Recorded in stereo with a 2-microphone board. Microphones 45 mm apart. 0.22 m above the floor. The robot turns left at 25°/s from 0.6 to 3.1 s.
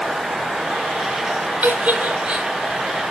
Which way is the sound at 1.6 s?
40° right (ahead or behind).